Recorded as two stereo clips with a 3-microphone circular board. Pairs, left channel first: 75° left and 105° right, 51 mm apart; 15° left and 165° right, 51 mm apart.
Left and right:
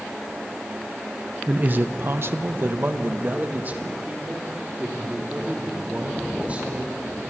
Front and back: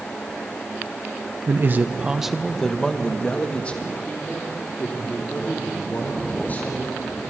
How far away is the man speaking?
About 0.9 m.